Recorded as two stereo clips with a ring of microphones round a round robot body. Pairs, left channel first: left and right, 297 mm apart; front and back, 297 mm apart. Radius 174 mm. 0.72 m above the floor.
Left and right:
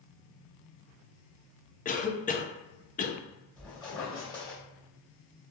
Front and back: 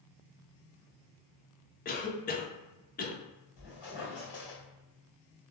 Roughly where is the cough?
Ahead left.